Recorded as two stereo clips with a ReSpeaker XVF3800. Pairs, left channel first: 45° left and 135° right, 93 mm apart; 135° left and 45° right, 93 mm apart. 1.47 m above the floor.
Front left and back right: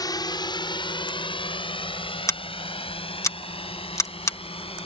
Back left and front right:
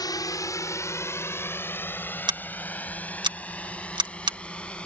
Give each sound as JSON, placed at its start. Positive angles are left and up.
{"t": 0.0, "sound": "a drone", "azimuth_deg": 90}
{"t": 2.3, "sound": "scissors", "azimuth_deg": -10}